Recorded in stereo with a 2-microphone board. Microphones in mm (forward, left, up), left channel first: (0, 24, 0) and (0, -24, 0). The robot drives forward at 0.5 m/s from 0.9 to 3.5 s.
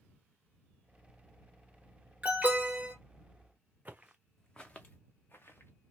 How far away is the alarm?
About 1.2 m.